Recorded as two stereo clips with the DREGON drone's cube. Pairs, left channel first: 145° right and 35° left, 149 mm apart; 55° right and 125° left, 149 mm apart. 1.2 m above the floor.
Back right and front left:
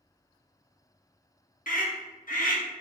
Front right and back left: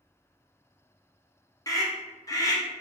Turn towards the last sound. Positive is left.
turn(degrees=-120)